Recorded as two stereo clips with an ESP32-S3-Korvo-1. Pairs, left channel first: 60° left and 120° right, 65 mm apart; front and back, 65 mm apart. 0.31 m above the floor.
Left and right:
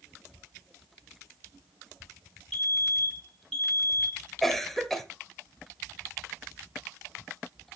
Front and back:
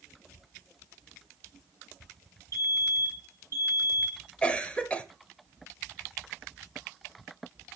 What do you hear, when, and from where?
2.5 s a fire alarm: 20° right, 3.5 m
4.4 s a cough: 15° right, 0.9 m